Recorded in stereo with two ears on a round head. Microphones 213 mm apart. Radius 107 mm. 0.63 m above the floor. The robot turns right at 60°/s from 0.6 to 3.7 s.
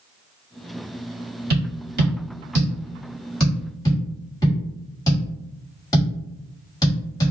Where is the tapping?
45° right (ahead or behind), 1.7 m; by 7.3 s 15° left (ahead or behind), 1.7 m.